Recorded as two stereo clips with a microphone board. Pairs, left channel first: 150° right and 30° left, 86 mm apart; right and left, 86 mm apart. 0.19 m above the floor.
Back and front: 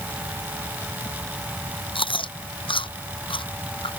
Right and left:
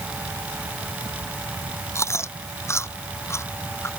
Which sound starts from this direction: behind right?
Chewing, at 1.9 s.